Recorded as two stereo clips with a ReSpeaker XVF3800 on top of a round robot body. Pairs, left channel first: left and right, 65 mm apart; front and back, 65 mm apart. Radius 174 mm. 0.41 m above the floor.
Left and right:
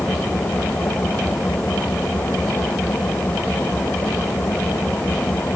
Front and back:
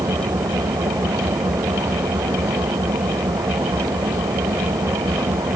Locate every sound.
0.0 s an engine running: 160° left